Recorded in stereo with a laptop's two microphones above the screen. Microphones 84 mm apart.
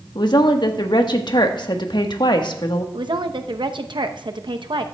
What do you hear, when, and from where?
0.1 s a woman speaking: 60° left (ahead or behind), 1.3 m
2.9 s a woman speaking: 65° right (ahead or behind), 0.8 m